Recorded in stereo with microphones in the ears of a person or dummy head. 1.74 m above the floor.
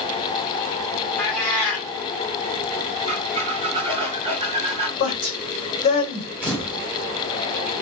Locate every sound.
1.2 s a cat meowing: 15° left (ahead or behind), 1.4 m
3.1 s a squeak: 30° right (ahead or behind), 3 m
5.0 s a woman speaking: 40° left (ahead or behind), 1.1 m
6.4 s a camera shutter: 5° right (ahead or behind), 2 m